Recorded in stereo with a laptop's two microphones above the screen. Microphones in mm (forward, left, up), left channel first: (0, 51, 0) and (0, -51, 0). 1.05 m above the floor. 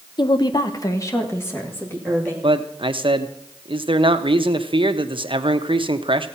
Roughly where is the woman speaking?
Left.